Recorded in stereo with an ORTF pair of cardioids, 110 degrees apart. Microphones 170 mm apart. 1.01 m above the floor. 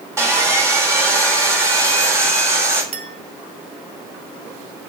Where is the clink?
45° right, 1.8 m.